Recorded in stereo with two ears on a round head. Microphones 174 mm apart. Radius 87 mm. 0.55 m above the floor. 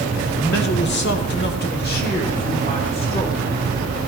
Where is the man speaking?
50° left (ahead or behind), 1.6 m; by 3.5 s 25° left (ahead or behind), 2 m.